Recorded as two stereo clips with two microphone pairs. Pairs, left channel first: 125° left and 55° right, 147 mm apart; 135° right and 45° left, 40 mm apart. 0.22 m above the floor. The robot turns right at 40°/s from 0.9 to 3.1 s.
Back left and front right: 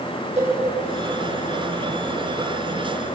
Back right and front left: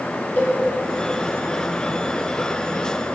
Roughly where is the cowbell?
Right.